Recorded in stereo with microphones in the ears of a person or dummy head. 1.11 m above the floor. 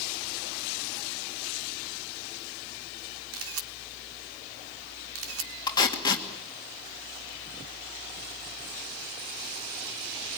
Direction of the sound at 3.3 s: 85° right.